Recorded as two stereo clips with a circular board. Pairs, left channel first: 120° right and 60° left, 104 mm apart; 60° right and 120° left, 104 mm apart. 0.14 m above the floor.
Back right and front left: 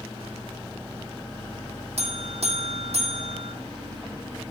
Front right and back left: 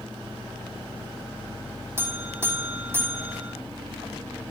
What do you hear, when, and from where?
2.0 s a buzzer: 50° left, 2.5 m